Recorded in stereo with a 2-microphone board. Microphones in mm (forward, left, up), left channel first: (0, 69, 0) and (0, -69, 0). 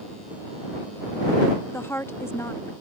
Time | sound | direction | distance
1.7 | a woman speaking | 20° left (ahead or behind) | ?